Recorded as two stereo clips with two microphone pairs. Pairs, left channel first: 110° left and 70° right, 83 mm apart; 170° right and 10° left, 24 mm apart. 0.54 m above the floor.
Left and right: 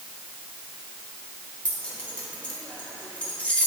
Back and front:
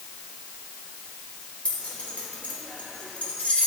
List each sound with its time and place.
1.6 s keys jangling: 175° right, 1.4 m